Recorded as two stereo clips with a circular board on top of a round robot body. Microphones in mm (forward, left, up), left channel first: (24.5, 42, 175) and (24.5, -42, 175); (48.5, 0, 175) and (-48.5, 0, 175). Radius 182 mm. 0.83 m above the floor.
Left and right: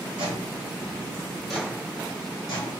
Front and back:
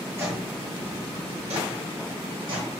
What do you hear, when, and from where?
0.2 s footsteps: 115° right, 1.2 m; by 2.8 s 130° left, 1.4 m